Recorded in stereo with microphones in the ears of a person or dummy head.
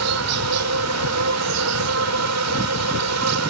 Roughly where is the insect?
Right.